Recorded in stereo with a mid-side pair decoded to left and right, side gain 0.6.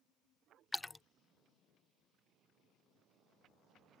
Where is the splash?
10° left.